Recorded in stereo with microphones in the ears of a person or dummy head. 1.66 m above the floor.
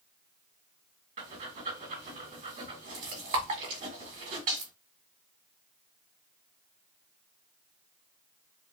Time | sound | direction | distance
1.2 | breathing | 45° right (ahead or behind) | 2.5 m